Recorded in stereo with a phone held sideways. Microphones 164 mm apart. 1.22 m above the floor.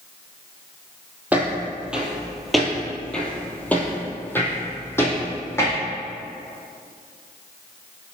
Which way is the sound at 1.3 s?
10° right (ahead or behind).